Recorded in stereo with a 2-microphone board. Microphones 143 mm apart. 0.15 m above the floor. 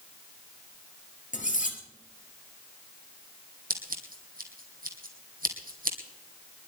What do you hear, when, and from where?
1.3 s cutlery clinking: 60° left (ahead or behind), 2 m
3.7 s scissors: 75° right (ahead or behind), 2.5 m